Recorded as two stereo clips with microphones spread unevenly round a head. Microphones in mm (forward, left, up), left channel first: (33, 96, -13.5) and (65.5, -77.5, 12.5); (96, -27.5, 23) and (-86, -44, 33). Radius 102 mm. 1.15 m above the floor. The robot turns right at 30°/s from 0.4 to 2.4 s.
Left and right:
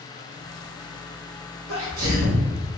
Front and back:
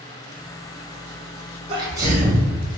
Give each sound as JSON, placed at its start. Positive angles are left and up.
{"t": 1.7, "sound": "a sneeze", "azimuth_deg": -110, "distance_m": 1.5}